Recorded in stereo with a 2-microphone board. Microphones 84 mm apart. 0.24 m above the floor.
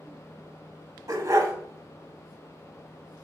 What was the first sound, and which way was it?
A dog barking, 40° right (ahead or behind).